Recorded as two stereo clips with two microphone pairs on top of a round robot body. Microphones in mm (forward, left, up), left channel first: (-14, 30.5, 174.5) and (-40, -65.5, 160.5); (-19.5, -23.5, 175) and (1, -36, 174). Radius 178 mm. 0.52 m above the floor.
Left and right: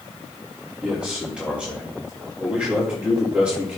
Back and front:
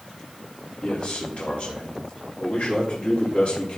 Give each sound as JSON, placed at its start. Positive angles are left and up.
{"t": 0.8, "sound": "a man speaking", "azimuth_deg": 180, "distance_m": 2.5}